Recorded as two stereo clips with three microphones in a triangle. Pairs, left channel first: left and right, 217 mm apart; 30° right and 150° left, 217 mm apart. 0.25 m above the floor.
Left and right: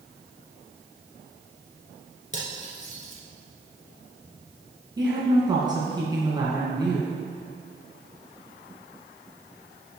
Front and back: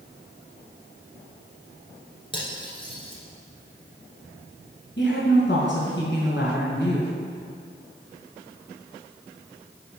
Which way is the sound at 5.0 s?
20° right.